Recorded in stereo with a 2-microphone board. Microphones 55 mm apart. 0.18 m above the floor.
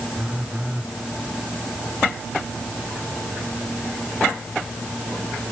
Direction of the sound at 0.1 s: 20° right (ahead or behind).